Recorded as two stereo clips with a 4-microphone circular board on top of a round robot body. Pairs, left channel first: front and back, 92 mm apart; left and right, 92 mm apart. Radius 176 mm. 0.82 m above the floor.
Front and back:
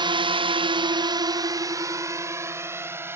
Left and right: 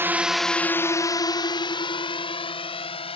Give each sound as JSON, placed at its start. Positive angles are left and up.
{"t": 0.0, "sound": "a drone", "azimuth_deg": -155}